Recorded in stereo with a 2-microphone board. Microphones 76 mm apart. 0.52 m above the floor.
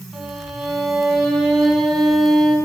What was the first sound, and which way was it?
A violin, centre (ahead or behind).